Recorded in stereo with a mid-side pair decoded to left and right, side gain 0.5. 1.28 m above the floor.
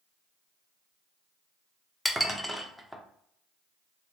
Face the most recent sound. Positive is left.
turn(degrees=0)